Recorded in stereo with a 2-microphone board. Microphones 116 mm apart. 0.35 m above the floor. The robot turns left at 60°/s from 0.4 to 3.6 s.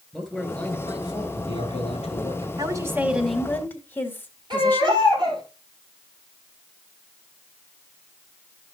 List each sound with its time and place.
0.1 s a man speaking: 175° left, 3.5 m; by 2.5 s 50° left, 3.5 m
2.6 s a woman speaking: 140° right, 1.7 m; by 5.0 s 160° left, 1.7 m
4.5 s a baby crying: 45° right (ahead or behind), 4 m